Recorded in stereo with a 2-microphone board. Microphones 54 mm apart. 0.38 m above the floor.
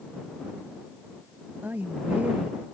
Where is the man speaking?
30° right (ahead or behind).